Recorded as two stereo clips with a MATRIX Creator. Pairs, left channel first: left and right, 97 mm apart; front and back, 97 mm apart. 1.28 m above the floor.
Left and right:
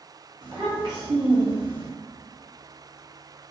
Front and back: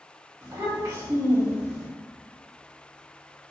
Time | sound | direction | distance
0.4 | a child speaking | 130° right | 1.2 m